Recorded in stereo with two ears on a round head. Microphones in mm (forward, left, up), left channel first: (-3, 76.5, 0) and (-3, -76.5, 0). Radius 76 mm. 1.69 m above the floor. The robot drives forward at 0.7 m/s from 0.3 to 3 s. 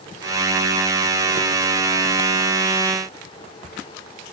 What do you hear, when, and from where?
Only background noise.